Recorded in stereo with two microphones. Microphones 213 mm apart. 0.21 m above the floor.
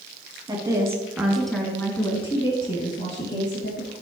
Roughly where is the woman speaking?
Centre.